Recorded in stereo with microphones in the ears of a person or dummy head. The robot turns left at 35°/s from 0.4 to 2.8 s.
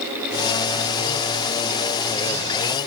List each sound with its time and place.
Only background noise.